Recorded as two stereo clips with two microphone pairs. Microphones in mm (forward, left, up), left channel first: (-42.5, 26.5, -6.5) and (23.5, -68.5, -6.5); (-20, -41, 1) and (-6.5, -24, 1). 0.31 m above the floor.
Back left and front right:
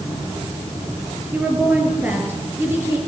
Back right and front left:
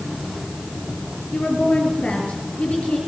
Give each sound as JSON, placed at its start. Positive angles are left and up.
{"t": 1.3, "sound": "a woman speaking", "azimuth_deg": -135, "distance_m": 5.5}